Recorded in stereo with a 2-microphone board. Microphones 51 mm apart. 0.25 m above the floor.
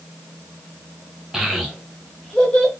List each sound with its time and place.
1.3 s a child speaking: 5° right (ahead or behind), 0.8 m; by 2.7 s 20° left (ahead or behind), 0.9 m